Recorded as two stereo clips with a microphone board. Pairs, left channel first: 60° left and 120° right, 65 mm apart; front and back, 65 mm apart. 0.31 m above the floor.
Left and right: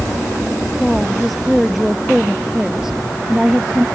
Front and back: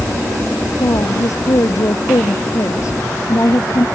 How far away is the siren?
I don't hear a siren.